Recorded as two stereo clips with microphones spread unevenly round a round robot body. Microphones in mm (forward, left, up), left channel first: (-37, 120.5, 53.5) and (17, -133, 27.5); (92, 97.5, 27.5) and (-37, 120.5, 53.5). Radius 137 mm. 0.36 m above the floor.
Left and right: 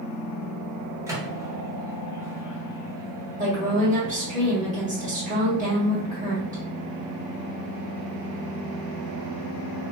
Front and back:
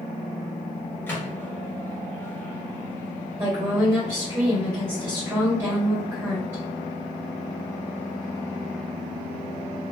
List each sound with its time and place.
1.1 s a microwave: 25° right, 0.8 m
3.4 s a woman speaking: 110° right, 1.7 m